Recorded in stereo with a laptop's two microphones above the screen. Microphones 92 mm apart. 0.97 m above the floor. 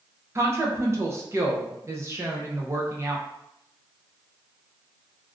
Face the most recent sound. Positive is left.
turn(degrees=-30)  # may be behind; listen again after turning